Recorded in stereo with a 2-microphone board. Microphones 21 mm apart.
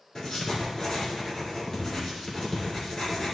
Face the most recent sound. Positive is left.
turn(degrees=45)  # may be behind; listen again after turning